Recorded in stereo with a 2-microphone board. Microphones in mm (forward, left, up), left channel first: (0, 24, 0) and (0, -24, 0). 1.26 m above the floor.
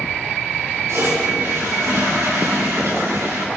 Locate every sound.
0.9 s a toilet flushing: 70° right (ahead or behind), 4 m